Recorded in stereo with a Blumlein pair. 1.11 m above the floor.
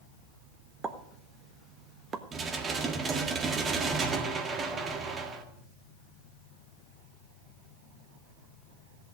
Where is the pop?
20° right, 1.1 m.